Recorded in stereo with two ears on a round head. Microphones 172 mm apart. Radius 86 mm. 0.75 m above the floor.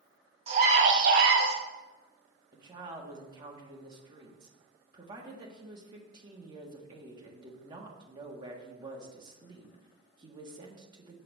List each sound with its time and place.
0.5 s a scream: 30° right (ahead or behind), 1.1 m; by 1.6 s 60° right (ahead or behind), 1.3 m
2.5 s a woman speaking: 25° right (ahead or behind), 1.4 m